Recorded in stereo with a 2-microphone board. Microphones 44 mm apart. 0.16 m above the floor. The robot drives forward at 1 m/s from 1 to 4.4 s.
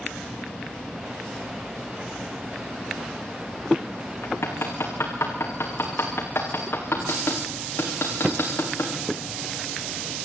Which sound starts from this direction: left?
Hammering, at 4.2 s.